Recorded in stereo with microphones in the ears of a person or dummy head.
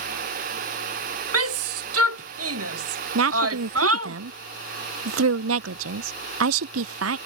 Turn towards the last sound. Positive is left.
turn(degrees=-80)